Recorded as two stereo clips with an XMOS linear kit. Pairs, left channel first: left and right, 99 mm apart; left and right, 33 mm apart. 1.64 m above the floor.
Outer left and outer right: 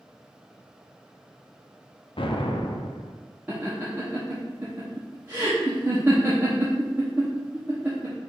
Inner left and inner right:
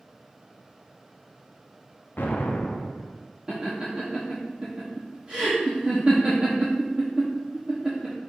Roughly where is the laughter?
Centre.